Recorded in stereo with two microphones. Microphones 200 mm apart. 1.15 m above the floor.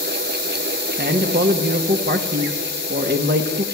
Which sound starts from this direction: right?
A man speaking, at 1.0 s.